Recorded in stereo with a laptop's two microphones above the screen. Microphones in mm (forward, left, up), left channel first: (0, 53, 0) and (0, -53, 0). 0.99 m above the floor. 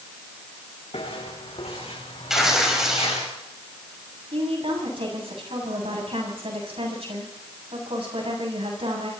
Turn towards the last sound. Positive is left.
turn(degrees=-65)  # may be behind; listen again after turning